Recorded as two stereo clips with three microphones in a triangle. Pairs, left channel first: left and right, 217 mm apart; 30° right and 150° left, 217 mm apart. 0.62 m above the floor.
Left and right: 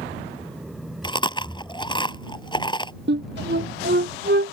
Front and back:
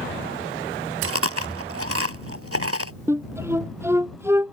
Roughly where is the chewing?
Behind.